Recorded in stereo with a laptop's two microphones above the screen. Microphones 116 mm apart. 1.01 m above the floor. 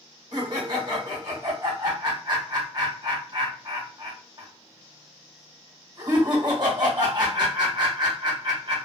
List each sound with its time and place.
0.3 s laughter: 40° right (ahead or behind), 1.3 m